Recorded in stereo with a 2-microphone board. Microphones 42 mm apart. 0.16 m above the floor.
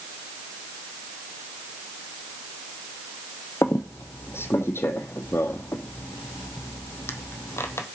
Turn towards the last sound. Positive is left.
turn(degrees=80)